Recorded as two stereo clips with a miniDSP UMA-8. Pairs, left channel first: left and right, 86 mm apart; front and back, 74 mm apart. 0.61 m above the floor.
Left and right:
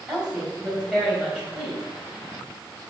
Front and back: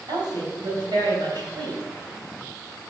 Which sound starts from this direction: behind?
A woman speaking, at 0.1 s.